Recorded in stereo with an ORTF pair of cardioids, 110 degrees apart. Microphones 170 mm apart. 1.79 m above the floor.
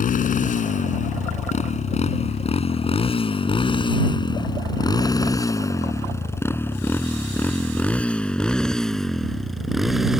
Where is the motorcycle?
50° left; by 10.2 s straight ahead.